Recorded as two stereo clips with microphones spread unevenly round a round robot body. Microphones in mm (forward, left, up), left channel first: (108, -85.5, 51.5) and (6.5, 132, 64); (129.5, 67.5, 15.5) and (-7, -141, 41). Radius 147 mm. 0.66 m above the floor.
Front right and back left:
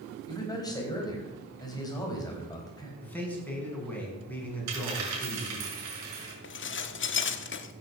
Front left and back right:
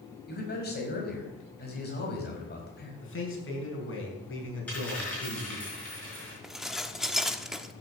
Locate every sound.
0.3 s a man speaking: 10° left, 5 m
3.0 s a man speaking: 20° left, 5.5 m
4.7 s a dropped coin: 145° left, 4.5 m
6.4 s dishes clattering: 30° right, 1.1 m